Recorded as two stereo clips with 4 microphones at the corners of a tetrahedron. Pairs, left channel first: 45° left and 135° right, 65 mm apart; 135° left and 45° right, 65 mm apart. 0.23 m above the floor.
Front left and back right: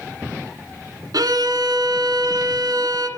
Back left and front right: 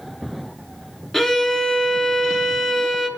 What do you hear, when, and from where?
1.1 s a violin: 140° right, 1.2 m